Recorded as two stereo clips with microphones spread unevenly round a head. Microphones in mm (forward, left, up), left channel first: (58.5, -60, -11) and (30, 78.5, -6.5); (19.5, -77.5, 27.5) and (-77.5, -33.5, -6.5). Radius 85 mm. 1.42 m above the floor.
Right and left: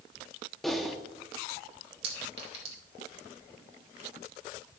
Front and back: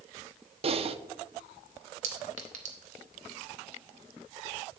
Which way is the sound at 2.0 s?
155° left.